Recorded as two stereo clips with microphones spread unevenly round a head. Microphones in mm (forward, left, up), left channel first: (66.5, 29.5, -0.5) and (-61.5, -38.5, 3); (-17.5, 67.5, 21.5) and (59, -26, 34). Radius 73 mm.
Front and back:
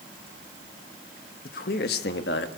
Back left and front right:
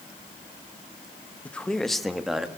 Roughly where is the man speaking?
Ahead left.